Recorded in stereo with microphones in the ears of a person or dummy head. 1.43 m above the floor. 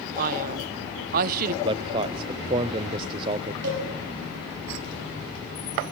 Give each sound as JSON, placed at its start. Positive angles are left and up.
{"t": 0.2, "sound": "a man speaking", "side_deg": -50, "distance_m": 0.8}
{"t": 1.6, "sound": "a man speaking", "side_deg": -25, "distance_m": 0.6}
{"t": 3.6, "sound": "a cowbell", "side_deg": -60, "distance_m": 6.5}